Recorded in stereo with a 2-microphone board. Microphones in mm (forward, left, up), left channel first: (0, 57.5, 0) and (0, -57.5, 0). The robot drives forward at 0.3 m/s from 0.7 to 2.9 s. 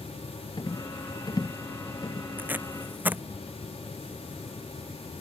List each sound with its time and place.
0.6 s a rattle: 40° left (ahead or behind); by 2.3 s 35° left (ahead or behind)
2.4 s tape being pulled: 15° right (ahead or behind)